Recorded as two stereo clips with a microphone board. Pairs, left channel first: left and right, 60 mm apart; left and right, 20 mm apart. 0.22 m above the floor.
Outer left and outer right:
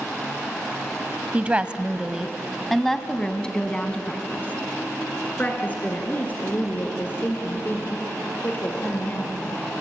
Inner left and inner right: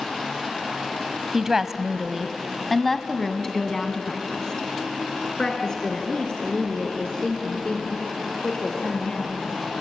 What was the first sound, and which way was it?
A woman speaking, 25° right (ahead or behind).